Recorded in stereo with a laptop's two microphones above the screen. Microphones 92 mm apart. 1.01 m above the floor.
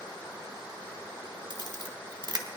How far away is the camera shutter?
About 1.1 m.